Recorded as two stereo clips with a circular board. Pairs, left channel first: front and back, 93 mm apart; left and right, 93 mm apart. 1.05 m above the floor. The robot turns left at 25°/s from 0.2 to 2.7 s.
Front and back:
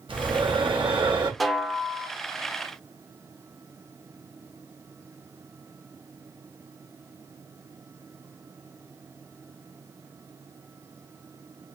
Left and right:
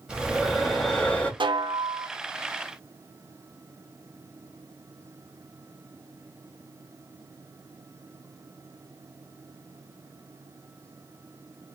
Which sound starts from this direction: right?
A snare drum, at 1.4 s.